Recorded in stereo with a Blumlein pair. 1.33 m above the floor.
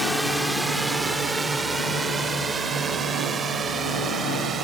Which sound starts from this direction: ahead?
A drone, at 0.0 s.